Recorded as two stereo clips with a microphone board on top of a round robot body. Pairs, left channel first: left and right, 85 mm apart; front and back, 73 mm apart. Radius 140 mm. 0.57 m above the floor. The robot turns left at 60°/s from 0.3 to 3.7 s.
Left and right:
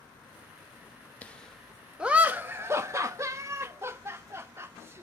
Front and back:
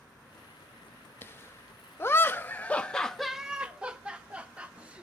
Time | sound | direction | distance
1.2 | laughter | 30° left | 1.4 m